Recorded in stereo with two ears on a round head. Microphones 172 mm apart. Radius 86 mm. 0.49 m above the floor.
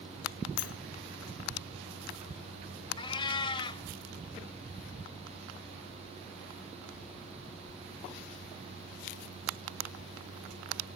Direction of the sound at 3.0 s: 25° left (ahead or behind).